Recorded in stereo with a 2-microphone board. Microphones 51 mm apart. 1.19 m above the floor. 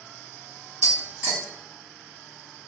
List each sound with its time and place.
0.8 s tapping: 50° right (ahead or behind), 1.2 m